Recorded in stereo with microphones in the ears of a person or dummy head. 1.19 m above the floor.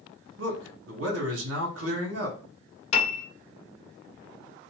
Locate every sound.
0.4 s a man speaking: 85° right, 1.2 m
2.9 s a piano: 45° left (ahead or behind), 0.8 m